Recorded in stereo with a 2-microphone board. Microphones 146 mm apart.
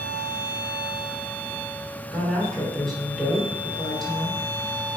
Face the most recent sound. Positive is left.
turn(degrees=0)  # may be behind; listen again after turning